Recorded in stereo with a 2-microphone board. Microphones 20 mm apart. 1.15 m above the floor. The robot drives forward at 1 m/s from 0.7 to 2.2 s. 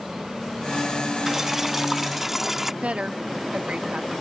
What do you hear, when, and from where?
1.3 s boiling: 15° right (ahead or behind); by 2.7 s 10° right (ahead or behind)
2.8 s a woman speaking: 85° right